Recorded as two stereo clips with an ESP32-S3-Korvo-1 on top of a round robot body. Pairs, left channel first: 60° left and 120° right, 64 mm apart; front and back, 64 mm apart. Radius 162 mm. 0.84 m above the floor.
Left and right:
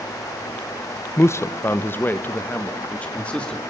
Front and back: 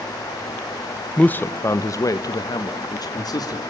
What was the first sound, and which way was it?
A man speaking, 65° left.